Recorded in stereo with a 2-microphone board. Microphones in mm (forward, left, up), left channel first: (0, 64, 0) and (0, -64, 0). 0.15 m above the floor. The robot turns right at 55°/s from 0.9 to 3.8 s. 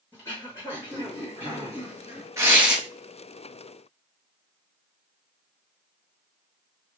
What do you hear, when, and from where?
0.1 s throat clearing: 25° left, 2 m; by 2.3 s 100° left, 2 m
2.4 s tearing paper: 25° right (ahead or behind), 0.9 m; by 2.8 s centre (ahead or behind), 0.9 m